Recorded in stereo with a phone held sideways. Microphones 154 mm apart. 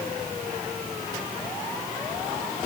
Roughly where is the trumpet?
I don't hear a trumpet.